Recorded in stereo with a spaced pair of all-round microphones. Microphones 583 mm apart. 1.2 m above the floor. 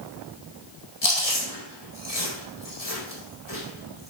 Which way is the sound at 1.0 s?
80° left.